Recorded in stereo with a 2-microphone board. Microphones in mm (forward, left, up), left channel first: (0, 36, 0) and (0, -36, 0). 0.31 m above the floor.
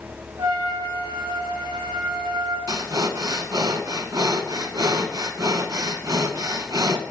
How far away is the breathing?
About 0.5 m.